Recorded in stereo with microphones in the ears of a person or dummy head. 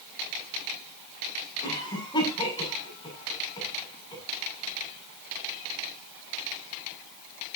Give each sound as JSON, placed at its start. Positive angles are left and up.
{"t": 1.6, "sound": "a cough", "side_deg": 20, "distance_m": 6.5}